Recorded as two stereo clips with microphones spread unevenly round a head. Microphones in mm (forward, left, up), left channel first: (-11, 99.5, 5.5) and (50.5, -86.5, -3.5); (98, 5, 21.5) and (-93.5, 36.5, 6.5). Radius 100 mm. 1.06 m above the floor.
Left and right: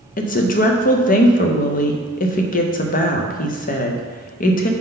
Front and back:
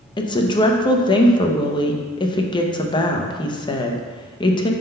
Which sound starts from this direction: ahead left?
A woman speaking, at 0.2 s.